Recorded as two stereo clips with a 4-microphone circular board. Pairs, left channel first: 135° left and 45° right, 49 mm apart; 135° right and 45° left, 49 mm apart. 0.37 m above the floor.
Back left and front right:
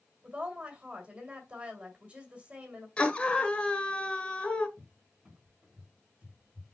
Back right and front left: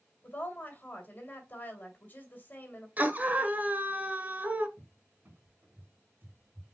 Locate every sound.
0.2 s a woman speaking: 100° right, 1.9 m
3.0 s a scream: 80° left, 1.2 m
4.8 s a cupboard door: 15° left, 2.0 m